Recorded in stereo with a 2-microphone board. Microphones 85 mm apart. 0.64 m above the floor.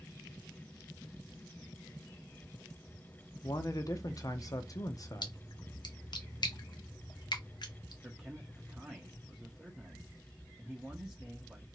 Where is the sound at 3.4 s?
40° left (ahead or behind), 0.7 m.